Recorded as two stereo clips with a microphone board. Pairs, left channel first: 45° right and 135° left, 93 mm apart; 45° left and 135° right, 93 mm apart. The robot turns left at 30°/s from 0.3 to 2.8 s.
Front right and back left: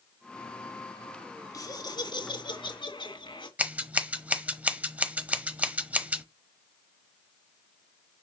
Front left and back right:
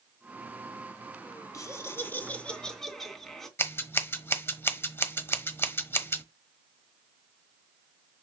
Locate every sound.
1.5 s laughter: 5° right, 2.5 m; by 3.5 s 40° right, 2.5 m
3.6 s scissors: 75° left, 1.0 m